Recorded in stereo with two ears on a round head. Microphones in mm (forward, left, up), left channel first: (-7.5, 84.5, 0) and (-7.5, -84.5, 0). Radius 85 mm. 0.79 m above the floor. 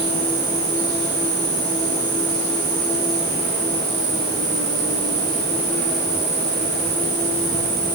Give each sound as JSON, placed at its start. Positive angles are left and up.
{"t": 0.0, "sound": "an insect", "side_deg": -45, "distance_m": 7.5}